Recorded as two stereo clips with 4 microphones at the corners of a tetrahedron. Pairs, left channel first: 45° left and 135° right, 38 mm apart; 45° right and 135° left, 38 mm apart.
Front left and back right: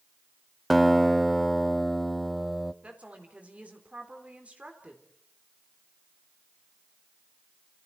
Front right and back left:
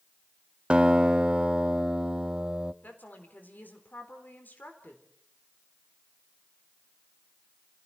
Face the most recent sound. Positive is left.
turn(degrees=-80)